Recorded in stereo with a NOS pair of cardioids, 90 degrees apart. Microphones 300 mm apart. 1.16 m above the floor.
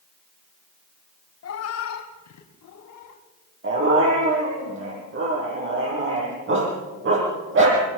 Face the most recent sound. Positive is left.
turn(degrees=-40)